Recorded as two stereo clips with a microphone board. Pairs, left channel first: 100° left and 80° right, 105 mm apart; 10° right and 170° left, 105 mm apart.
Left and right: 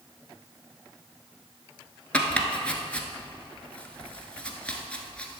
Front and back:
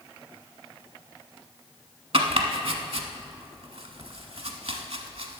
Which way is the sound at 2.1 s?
175° left.